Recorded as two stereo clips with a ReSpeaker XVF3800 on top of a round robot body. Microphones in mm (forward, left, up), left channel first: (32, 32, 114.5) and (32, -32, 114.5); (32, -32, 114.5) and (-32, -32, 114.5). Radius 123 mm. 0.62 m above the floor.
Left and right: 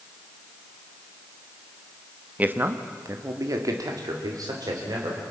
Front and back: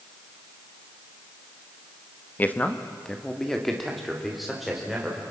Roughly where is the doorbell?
I don't hear a doorbell.